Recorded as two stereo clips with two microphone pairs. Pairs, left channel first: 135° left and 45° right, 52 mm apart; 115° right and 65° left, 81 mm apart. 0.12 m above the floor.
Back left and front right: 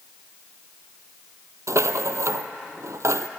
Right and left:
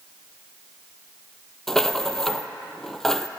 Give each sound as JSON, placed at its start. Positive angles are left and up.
{"t": 1.7, "sound": "a rattle", "azimuth_deg": -35, "distance_m": 0.6}